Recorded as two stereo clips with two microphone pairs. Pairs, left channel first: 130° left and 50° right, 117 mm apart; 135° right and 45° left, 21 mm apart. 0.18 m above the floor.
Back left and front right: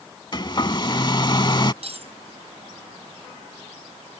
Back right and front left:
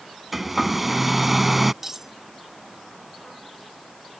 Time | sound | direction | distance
0.3 | a hair dryer | 130° left | ?
1.8 | cutlery clinking | 20° right | ?